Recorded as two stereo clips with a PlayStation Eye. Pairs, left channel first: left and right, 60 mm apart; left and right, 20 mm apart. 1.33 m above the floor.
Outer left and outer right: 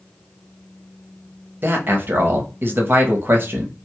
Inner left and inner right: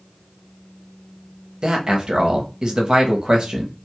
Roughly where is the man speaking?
Right.